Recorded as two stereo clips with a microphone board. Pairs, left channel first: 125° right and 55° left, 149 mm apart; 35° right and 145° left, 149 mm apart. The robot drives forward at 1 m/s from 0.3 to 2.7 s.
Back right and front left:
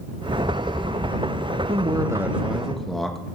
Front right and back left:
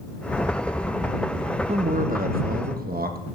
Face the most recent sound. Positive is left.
turn(degrees=150)